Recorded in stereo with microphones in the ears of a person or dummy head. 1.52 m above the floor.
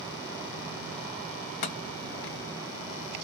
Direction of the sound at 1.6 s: 55° left (ahead or behind).